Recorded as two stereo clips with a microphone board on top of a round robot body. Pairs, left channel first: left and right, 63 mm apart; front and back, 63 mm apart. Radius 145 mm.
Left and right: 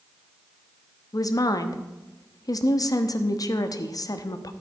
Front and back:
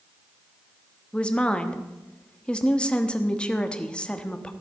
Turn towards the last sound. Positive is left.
turn(degrees=75)